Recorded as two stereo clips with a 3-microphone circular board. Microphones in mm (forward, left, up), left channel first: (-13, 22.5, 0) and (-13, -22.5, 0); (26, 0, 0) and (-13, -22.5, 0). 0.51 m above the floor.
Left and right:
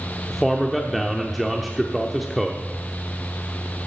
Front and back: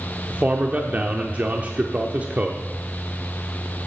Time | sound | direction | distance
0.3 | a man speaking | straight behind | 0.9 m